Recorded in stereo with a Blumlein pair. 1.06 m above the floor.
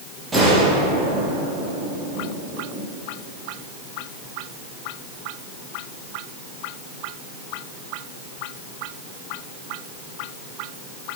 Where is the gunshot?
15° right, 5 m.